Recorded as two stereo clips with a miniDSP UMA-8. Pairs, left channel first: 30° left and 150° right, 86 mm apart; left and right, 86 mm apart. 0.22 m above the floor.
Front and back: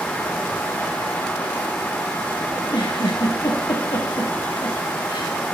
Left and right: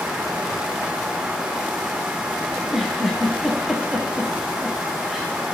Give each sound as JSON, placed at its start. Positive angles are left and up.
{"t": 2.5, "sound": "a giggle", "azimuth_deg": 0, "distance_m": 9.5}